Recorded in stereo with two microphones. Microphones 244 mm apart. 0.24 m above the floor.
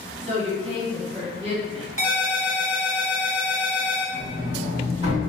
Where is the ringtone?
60° right (ahead or behind), 0.8 m.